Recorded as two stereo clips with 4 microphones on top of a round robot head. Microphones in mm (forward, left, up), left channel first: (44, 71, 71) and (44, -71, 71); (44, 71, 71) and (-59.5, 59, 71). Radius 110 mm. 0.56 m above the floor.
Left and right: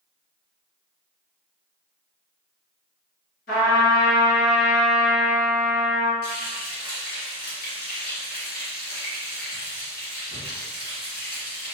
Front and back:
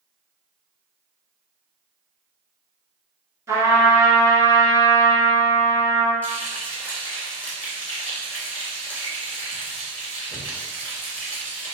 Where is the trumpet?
125° left, 1.8 m.